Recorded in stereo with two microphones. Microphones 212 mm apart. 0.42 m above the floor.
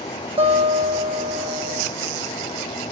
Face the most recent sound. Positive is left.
turn(degrees=-25)  # may be behind; listen again after turning